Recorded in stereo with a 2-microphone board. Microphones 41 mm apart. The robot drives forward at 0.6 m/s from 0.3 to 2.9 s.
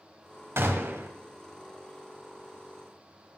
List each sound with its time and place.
0.6 s a gunshot: 75° right (ahead or behind), 1.4 m; by 1.1 s 65° right (ahead or behind), 1.4 m